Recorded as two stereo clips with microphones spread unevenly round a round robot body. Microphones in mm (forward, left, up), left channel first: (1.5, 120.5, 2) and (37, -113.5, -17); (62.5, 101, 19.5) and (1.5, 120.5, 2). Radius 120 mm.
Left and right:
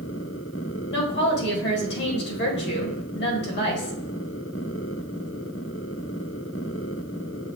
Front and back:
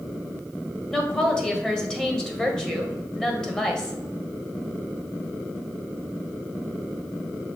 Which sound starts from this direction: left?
A woman speaking, at 0.9 s.